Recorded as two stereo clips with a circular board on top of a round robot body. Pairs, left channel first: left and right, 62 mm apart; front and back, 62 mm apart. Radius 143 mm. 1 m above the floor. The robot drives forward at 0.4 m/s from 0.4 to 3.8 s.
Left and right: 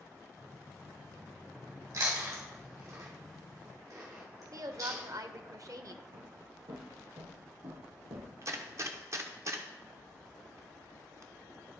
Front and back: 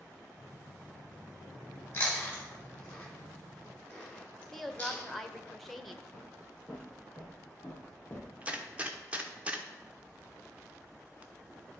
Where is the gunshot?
115° right, 1.2 m.